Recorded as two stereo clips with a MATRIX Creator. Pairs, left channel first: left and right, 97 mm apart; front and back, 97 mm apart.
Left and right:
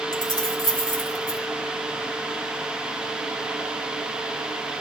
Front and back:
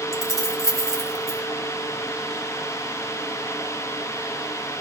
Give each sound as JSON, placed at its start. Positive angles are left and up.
{"t": 0.1, "sound": "keys jangling", "azimuth_deg": 130, "distance_m": 1.3}